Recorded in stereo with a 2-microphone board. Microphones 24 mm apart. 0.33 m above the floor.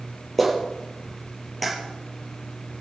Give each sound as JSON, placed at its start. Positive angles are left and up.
{"t": 0.4, "sound": "a clap", "side_deg": 5, "distance_m": 6.0}